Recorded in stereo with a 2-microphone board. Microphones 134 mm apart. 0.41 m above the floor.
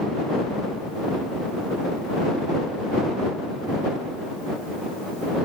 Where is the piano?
No piano in this recording.